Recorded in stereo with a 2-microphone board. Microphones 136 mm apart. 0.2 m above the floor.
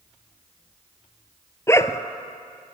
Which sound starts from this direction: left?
A dog barking, at 1.7 s.